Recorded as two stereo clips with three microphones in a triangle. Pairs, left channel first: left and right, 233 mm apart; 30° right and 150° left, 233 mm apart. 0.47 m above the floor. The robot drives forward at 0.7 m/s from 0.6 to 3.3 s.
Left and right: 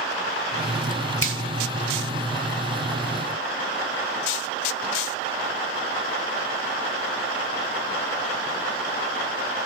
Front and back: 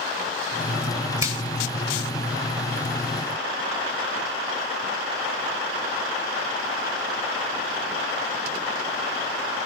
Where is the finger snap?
75° left, 1.2 m; by 1.4 s 80° left, 1.1 m.